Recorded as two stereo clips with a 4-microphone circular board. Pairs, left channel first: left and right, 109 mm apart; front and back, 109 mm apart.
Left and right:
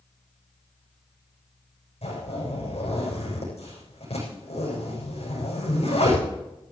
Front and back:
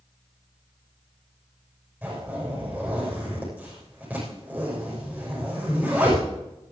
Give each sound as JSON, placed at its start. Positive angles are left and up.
{"t": 2.0, "sound": "a zipper", "azimuth_deg": 105, "distance_m": 8.5}